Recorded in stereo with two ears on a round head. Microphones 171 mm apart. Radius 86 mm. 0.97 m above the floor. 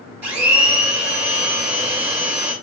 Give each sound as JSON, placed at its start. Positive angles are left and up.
{"t": 0.2, "sound": "a blender", "side_deg": -10, "distance_m": 1.7}